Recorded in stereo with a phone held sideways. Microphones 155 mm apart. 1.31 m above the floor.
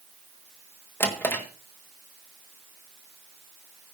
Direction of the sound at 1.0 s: 15° left (ahead or behind).